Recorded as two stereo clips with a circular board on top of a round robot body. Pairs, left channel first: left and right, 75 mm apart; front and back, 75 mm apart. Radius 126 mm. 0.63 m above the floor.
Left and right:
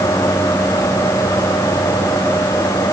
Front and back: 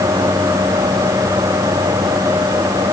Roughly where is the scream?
I don't hear a scream.